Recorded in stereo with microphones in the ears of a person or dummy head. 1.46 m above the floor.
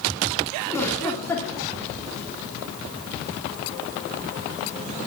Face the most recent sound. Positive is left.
turn(degrees=15)  # may be behind; listen again after turning